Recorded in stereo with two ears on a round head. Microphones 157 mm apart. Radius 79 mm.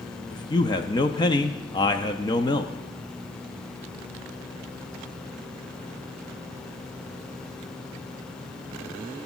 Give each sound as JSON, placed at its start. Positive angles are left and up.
{"t": 0.3, "sound": "a man speaking", "side_deg": 25, "distance_m": 0.6}